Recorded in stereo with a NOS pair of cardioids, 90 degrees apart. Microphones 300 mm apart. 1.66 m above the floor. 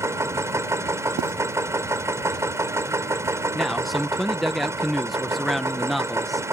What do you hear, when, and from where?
0.0 s a machine running: 10° right
1.2 s writing: 60° right
3.5 s a man speaking: straight ahead